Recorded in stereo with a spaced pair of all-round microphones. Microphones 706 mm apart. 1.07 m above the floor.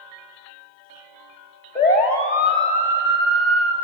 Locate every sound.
1.8 s a siren: 65° left (ahead or behind), 3.5 m; by 3.7 s 75° left (ahead or behind), 3 m